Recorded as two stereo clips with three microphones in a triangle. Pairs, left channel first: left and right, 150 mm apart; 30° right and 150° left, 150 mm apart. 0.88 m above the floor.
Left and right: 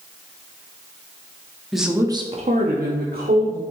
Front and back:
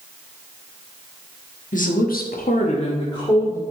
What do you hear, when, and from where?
1.7 s a woman speaking: straight ahead, 1.3 m; by 3.6 s 100° right, 2 m